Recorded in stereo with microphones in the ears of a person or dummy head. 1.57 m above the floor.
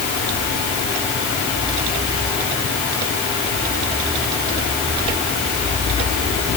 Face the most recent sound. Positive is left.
No sound to turn to.